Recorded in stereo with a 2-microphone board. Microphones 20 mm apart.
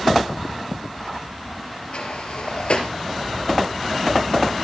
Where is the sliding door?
70° left (ahead or behind), 2.5 m.